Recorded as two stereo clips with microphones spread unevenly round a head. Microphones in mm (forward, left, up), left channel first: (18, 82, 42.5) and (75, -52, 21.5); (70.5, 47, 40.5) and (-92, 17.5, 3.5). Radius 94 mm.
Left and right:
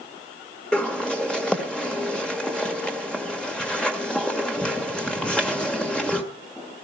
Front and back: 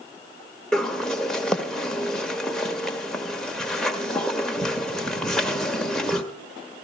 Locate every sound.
0.7 s a bird: 60° left, 1.5 m